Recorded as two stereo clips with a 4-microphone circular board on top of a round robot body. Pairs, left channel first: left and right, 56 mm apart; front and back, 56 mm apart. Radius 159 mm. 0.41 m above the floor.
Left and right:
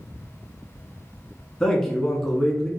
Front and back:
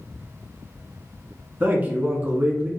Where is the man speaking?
165° left, 1.1 m.